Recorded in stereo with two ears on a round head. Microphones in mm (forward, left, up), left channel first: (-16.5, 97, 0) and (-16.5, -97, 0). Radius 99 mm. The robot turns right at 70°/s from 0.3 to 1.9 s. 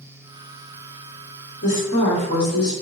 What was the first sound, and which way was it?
A woman speaking, 35° left (ahead or behind).